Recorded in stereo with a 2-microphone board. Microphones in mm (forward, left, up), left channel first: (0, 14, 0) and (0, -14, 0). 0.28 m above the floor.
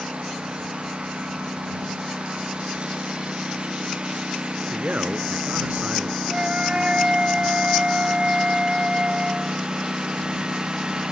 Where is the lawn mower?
45° right (ahead or behind); by 11.1 s 30° right (ahead or behind).